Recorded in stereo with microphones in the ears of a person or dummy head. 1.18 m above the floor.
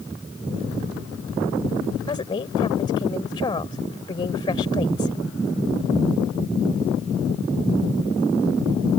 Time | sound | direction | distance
2.1 | a woman speaking | 20° left (ahead or behind) | ?